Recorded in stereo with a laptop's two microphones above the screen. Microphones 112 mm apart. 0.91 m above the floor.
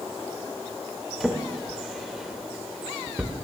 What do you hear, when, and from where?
1.2 s a drawer: 5° right (ahead or behind), 0.7 m